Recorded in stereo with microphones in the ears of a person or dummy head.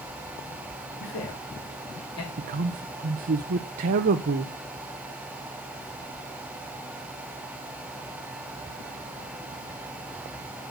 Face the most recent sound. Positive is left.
turn(degrees=-45)  # may be behind; listen again after turning